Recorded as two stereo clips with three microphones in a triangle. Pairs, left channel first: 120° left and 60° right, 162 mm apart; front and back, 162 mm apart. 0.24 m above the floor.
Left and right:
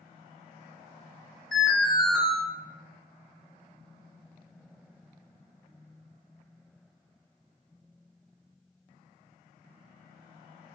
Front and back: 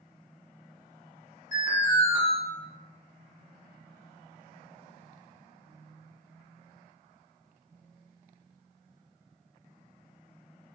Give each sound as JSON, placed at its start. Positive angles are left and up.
{"t": 1.5, "sound": "an alarm", "azimuth_deg": 35, "distance_m": 1.6}